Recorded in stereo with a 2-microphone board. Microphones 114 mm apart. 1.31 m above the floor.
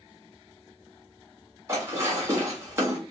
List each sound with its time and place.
1.7 s dishes clattering: 25° right (ahead or behind), 1.2 m